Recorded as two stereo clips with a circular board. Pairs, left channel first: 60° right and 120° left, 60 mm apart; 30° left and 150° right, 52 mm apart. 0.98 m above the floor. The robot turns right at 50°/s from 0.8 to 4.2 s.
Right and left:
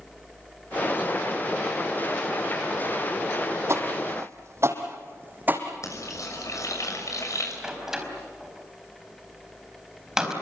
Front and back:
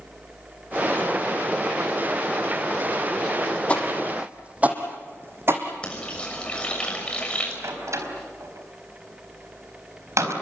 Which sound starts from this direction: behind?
A door slam, at 7.6 s.